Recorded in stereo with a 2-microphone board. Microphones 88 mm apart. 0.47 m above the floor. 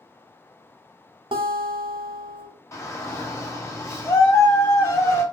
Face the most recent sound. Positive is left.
turn(degrees=30)  # may be behind; listen again after turning